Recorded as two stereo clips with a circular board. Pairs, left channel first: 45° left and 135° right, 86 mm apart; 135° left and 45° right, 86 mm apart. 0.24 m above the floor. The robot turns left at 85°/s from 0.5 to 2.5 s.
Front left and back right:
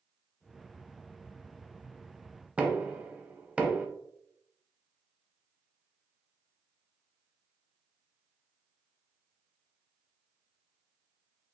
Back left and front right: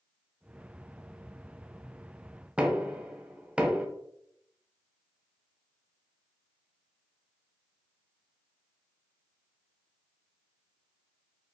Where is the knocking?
95° right, 0.8 m.